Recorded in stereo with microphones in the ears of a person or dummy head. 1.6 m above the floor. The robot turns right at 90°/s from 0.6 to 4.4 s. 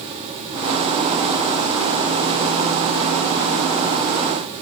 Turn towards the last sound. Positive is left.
No sound to turn to.